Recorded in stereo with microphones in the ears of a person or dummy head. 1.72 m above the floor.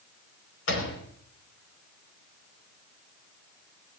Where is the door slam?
80° left, 5 m.